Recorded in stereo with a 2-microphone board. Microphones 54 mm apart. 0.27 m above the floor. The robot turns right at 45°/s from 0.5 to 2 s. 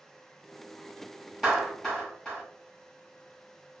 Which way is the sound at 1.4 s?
5° right (ahead or behind).